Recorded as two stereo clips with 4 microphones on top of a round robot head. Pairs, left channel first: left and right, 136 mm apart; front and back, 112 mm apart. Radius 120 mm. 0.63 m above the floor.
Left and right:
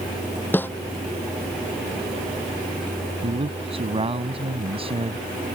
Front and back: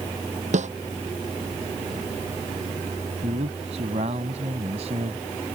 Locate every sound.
0.5 s a snare drum: 165° left
3.2 s a man speaking: 140° right